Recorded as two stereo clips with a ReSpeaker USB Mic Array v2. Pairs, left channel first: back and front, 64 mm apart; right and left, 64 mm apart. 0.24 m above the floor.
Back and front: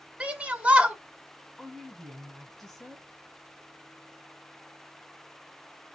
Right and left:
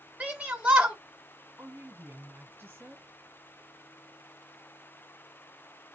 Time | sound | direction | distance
0.2 | a shout | 40° left | 1.0 m
1.6 | a woman speaking | 105° left | 1.2 m